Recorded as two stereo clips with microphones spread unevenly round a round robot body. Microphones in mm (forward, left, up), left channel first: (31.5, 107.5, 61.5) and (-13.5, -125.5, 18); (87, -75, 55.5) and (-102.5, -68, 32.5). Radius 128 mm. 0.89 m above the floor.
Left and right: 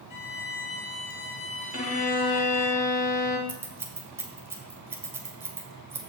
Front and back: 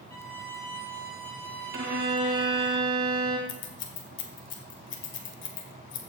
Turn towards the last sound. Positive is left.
turn(degrees=-20)